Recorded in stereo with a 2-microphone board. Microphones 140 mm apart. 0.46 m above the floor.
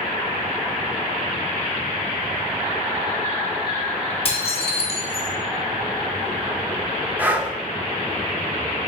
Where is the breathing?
15° right (ahead or behind), 0.6 m.